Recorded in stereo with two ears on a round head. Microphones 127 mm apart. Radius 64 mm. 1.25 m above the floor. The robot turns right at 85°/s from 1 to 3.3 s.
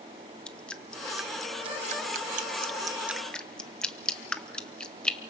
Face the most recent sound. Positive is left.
turn(degrees=5)  # may be behind; listen again after turning